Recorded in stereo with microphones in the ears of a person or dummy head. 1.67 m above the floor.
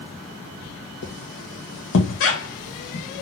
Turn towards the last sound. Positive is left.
turn(degrees=60)  # may be behind; listen again after turning